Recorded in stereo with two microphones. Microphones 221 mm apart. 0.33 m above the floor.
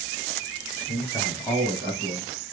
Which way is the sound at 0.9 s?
15° left (ahead or behind).